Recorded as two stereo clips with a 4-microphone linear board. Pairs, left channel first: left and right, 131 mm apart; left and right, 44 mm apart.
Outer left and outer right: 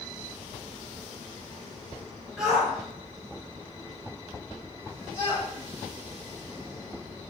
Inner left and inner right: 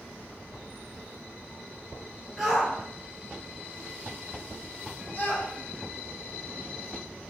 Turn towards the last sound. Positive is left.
turn(degrees=40)  # may be behind; listen again after turning